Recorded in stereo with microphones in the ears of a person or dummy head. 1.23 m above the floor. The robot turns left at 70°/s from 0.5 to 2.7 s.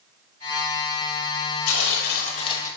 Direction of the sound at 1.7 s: 90° left.